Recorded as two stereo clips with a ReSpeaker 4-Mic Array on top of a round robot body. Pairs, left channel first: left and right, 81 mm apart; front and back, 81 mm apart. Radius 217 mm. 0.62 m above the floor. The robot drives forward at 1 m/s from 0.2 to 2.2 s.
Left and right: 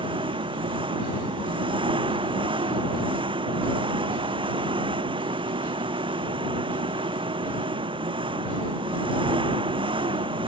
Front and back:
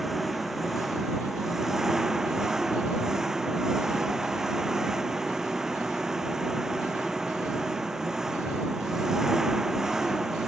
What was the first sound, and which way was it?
An engine running, 90° right.